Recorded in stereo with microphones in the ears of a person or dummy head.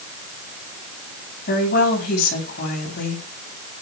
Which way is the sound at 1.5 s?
50° left (ahead or behind).